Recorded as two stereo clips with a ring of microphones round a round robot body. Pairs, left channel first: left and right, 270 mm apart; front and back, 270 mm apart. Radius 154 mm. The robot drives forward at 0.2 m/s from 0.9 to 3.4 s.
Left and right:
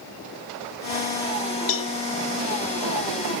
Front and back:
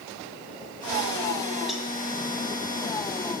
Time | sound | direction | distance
1.7 | a cowbell | 90° left | 0.9 m